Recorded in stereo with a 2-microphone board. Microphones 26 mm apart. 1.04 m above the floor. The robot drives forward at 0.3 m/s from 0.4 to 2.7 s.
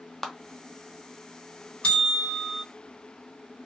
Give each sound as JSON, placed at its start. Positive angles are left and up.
{"t": 0.2, "sound": "a clap", "side_deg": 5, "distance_m": 0.5}
{"t": 1.8, "sound": "a bell", "side_deg": 50, "distance_m": 1.2}